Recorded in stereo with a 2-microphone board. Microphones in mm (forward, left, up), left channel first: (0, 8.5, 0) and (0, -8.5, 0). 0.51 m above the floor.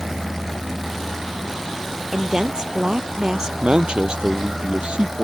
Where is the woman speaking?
40° right (ahead or behind).